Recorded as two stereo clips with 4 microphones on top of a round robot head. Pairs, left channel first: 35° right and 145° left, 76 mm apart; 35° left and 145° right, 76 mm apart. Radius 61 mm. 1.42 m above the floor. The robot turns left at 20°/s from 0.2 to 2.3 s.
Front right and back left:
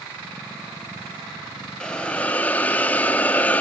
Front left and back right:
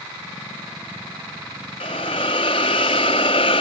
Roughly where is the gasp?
No gasp in this recording.